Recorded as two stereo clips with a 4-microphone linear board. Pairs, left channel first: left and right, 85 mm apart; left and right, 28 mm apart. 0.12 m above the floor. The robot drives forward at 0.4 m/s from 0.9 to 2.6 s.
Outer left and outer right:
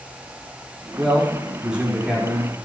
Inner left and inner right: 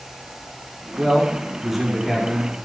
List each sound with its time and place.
1.0 s a man speaking: 10° right (ahead or behind), 5.5 m